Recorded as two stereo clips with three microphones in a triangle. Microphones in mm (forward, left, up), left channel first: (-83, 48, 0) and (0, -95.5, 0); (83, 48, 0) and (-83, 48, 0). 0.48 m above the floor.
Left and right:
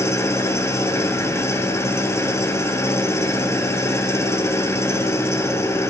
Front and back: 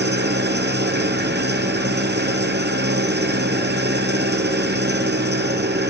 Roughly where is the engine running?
Behind.